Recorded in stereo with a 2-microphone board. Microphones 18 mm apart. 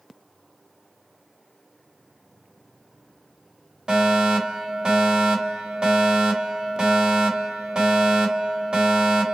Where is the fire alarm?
50° right (ahead or behind), 2.5 m.